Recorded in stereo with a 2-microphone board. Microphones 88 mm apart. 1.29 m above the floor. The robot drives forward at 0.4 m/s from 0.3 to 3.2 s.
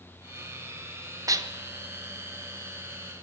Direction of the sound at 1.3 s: 40° right (ahead or behind).